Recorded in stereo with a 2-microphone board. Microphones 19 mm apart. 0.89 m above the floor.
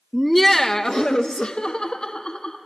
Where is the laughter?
10° right (ahead or behind), 0.5 m; by 2.6 s 65° left (ahead or behind), 1.6 m.